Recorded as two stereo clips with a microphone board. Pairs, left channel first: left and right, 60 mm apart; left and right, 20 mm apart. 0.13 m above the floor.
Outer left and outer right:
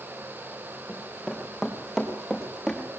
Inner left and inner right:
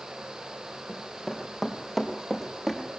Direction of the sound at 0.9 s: 10° right (ahead or behind).